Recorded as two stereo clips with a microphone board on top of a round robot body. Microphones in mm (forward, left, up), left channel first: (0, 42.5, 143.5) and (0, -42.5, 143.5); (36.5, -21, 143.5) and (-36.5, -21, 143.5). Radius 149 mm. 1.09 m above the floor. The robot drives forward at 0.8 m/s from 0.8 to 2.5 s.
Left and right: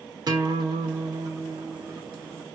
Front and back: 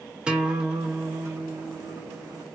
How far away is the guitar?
About 1.0 m.